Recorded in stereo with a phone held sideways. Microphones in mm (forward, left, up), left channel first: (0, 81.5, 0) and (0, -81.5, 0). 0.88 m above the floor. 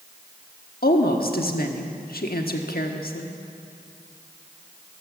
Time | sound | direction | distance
0.8 | a woman speaking | 75° left (ahead or behind) | 1.3 m